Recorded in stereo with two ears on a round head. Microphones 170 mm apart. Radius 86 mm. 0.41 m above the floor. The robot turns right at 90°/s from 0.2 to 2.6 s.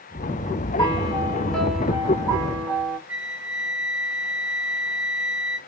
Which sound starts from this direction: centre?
A flute, at 3.1 s.